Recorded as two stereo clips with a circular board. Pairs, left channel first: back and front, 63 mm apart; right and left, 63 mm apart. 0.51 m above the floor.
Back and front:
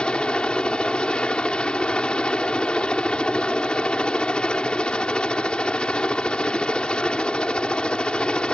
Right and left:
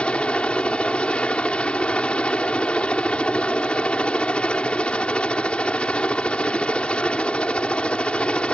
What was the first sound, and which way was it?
A helicopter, 130° right.